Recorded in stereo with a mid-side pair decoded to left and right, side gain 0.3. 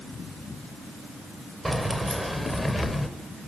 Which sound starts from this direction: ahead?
Keys jangling, at 1.6 s.